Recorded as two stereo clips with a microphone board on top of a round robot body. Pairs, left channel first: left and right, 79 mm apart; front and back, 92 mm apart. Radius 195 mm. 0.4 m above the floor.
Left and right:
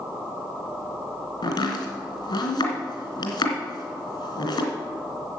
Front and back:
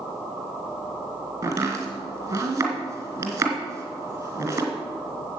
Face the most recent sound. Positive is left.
turn(degrees=120)